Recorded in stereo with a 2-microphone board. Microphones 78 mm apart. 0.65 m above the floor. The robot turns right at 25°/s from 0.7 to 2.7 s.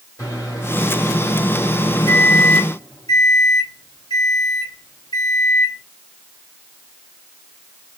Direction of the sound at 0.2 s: 45° left.